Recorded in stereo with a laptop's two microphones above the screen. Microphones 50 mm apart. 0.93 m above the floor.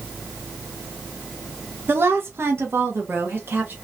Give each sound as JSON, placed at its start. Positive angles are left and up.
{"t": 1.9, "sound": "a woman speaking", "side_deg": -45, "distance_m": 0.6}